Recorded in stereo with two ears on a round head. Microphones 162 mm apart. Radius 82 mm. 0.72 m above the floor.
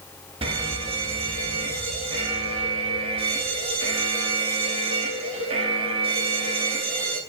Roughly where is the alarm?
Right.